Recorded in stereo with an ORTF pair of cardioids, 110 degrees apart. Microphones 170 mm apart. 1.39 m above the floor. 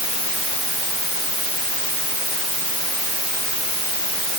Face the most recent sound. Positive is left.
No sound to turn to.